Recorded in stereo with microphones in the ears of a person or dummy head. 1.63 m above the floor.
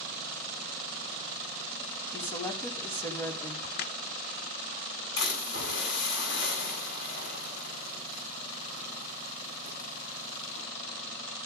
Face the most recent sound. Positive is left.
turn(degrees=75)  # may be behind; listen again after turning